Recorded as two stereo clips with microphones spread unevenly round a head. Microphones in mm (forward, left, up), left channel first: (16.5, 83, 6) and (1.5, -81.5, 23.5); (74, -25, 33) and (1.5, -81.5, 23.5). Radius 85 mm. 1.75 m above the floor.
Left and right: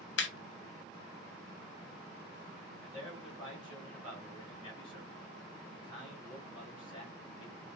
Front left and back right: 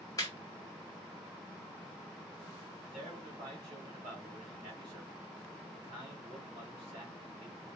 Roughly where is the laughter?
Left.